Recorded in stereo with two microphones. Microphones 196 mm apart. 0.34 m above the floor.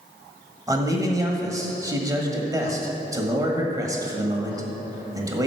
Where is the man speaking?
20° right (ahead or behind), 1.5 m.